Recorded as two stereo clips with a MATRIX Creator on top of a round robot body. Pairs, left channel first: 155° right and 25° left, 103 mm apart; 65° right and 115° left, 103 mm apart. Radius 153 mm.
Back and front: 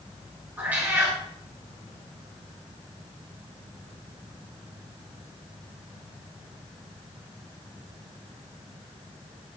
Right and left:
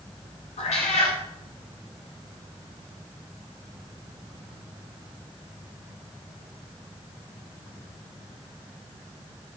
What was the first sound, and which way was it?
A cat meowing, 55° right.